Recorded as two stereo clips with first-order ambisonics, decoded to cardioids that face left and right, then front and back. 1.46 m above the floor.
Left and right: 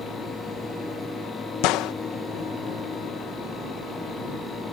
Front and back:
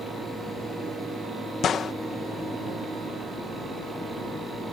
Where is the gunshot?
60° left.